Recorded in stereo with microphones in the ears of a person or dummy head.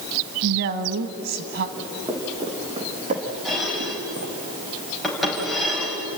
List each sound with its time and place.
0.4 s a woman speaking: 65° right (ahead or behind), 1.4 m
1.8 s footsteps: 20° right (ahead or behind), 4.5 m; by 4.3 s 65° right (ahead or behind), 3.5 m
3.5 s dishes clattering: centre (ahead or behind), 5 m